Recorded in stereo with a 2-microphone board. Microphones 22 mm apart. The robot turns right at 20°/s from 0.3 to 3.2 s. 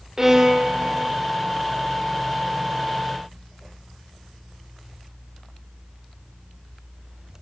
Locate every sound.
0.2 s a violin: 25° right (ahead or behind), 0.7 m; by 1.1 s 40° right (ahead or behind), 0.7 m